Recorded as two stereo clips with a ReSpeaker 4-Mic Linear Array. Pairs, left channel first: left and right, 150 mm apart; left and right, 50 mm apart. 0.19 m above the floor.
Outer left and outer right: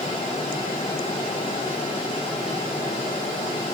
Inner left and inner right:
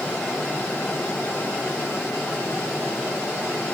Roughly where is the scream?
No scream in this recording.